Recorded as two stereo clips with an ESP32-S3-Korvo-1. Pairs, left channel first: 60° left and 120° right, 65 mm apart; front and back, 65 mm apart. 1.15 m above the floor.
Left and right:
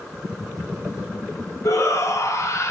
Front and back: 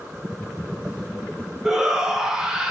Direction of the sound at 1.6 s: 100° left.